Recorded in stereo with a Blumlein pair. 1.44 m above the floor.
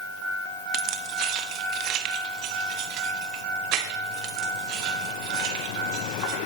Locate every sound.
0.7 s keys jangling: 35° right, 1.0 m